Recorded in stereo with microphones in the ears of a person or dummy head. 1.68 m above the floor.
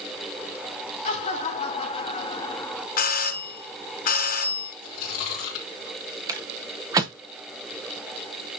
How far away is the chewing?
About 2.5 m.